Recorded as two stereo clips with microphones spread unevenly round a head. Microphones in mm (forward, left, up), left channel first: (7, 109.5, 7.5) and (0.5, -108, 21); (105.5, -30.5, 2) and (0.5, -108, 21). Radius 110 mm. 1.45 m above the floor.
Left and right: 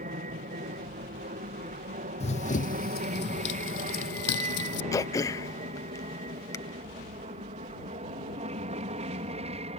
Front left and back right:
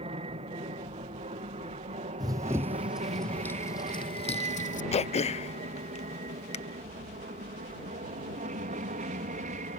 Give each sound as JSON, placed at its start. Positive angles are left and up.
{"t": 0.0, "sound": "an aircraft", "azimuth_deg": -135}
{"t": 2.2, "sound": "running footsteps", "azimuth_deg": 150}
{"t": 4.9, "sound": "throat clearing", "azimuth_deg": 15}